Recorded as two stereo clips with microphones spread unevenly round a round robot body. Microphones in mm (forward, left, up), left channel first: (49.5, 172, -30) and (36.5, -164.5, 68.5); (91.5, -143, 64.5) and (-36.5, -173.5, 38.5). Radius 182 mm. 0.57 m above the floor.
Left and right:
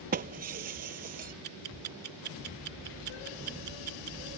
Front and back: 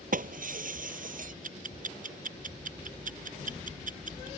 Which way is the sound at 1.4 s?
155° right.